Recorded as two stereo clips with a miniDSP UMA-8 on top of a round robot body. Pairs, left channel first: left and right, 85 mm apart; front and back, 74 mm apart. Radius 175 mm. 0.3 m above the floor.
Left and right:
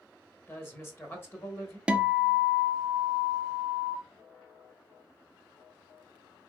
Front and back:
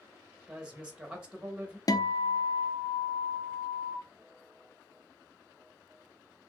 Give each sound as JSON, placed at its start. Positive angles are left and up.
{"t": 0.5, "sound": "a woman speaking", "azimuth_deg": 120, "distance_m": 1.6}
{"t": 1.9, "sound": "a guitar", "azimuth_deg": -15, "distance_m": 0.6}